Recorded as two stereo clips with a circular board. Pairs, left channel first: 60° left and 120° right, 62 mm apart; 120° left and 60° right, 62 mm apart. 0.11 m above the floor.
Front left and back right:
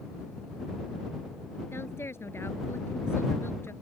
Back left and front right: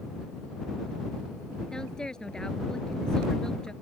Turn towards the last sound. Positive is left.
turn(degrees=45)